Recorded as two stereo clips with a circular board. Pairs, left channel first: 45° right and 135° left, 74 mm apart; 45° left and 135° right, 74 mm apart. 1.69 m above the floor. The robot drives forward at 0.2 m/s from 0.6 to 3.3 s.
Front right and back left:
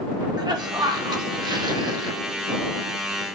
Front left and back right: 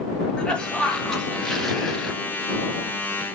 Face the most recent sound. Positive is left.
turn(degrees=140)